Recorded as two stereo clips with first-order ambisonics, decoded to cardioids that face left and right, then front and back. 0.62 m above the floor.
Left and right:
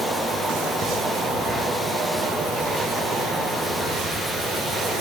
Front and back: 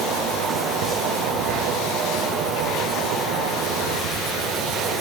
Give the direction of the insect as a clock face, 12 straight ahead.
5 o'clock.